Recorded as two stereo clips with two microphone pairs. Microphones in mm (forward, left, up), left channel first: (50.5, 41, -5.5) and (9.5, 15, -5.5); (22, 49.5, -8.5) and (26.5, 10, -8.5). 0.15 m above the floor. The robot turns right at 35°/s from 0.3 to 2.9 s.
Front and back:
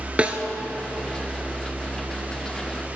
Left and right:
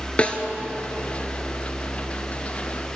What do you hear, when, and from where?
0.2 s a snare drum: 150° left, 1.1 m